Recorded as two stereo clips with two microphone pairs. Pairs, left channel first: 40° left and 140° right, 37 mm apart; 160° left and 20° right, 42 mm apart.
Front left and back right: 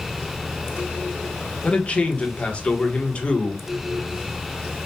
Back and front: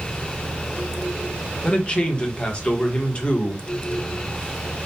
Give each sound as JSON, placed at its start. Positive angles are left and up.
{"t": 1.6, "sound": "a man speaking", "azimuth_deg": 95, "distance_m": 1.2}